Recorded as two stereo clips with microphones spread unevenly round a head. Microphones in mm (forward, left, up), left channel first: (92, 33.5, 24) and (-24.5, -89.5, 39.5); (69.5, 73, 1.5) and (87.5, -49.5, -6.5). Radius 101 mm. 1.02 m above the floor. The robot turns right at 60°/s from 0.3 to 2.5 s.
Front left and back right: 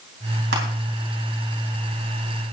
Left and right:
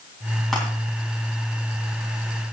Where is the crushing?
175° right, 3.5 m; by 0.6 s 165° right, 3.5 m.